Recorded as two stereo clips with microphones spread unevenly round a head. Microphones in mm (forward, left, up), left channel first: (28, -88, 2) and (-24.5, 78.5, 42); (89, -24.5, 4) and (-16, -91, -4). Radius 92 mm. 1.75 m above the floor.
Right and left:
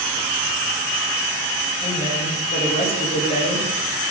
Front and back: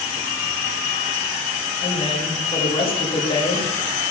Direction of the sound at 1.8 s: 10° right.